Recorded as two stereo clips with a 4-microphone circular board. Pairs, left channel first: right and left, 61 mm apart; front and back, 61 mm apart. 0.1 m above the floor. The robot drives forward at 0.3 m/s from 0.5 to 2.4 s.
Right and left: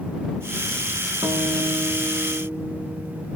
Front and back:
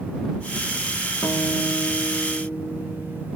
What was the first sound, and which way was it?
A guitar, 45° left.